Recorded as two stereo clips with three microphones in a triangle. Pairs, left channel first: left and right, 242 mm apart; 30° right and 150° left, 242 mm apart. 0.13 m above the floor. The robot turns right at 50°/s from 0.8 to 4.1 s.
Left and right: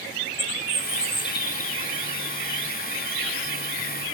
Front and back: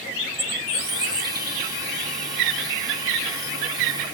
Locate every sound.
0.3 s a bird: 125° left, 1.4 m; by 1.8 s 175° left, 1.4 m